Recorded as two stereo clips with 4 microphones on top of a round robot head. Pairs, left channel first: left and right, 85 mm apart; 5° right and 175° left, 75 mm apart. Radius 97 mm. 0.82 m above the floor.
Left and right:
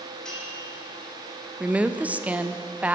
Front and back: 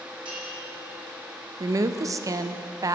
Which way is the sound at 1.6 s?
160° right.